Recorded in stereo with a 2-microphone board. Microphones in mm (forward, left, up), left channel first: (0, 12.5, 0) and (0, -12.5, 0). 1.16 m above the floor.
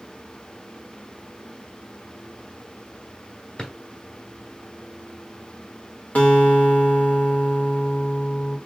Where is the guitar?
75° left (ahead or behind), 2 m.